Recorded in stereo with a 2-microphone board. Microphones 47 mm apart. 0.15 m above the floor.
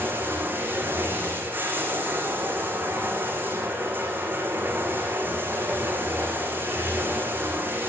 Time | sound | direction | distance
0.0 | running water | 40° right (ahead or behind) | 7 m